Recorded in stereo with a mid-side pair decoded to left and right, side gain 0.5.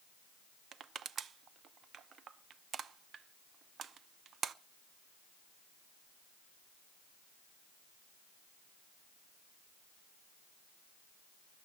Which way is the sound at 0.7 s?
50° right.